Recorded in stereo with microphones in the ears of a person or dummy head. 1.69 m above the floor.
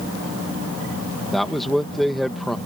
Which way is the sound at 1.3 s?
Centre (ahead or behind).